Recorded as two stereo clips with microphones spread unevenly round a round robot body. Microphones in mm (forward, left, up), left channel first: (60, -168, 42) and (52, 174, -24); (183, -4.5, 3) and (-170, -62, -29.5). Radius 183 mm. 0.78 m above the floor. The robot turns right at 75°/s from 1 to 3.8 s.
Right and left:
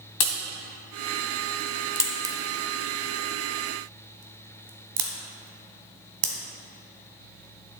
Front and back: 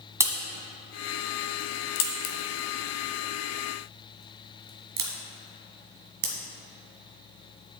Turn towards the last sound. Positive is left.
turn(degrees=125)